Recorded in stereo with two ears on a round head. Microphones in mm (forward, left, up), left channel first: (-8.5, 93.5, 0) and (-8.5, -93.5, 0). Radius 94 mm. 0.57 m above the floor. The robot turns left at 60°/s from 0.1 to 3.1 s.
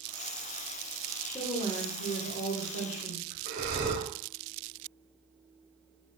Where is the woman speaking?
160° left, 1.6 m; by 3.4 s 55° left, 1.6 m.